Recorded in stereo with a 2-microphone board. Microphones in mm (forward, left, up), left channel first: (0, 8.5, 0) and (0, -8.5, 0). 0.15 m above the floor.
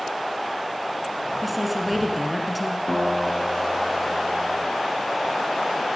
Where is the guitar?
30° left (ahead or behind), 2 m.